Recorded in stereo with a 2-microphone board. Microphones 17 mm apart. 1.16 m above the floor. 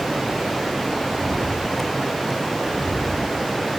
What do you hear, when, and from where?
1.1 s footsteps: 5° left (ahead or behind), 5.5 m; by 3.4 s 25° left (ahead or behind), 6 m